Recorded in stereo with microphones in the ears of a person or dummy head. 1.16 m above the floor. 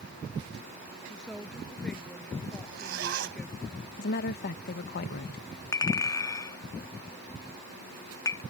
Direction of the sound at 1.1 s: 5° left (ahead or behind).